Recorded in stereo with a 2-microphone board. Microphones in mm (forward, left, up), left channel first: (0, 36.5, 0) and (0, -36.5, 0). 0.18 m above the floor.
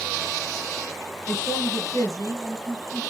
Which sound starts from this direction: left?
A man speaking, at 1.3 s.